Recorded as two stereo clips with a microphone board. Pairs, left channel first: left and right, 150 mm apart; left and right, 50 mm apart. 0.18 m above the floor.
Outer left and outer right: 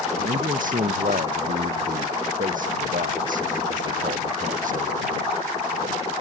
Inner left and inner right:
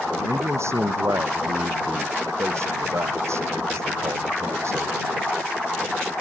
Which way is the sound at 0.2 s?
65° right (ahead or behind).